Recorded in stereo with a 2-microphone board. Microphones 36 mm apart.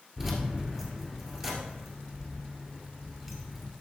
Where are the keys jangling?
10° right (ahead or behind), 2 m.